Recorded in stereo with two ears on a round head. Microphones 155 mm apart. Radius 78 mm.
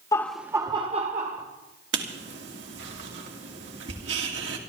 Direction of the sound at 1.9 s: 70° right (ahead or behind).